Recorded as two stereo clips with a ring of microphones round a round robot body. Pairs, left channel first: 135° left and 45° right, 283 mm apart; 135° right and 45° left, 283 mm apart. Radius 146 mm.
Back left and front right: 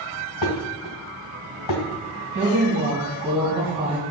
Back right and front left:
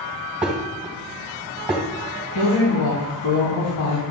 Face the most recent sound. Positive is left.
turn(degrees=-110)